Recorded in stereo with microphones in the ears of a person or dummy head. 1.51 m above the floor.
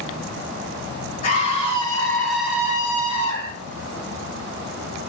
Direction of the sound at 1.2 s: 40° left (ahead or behind).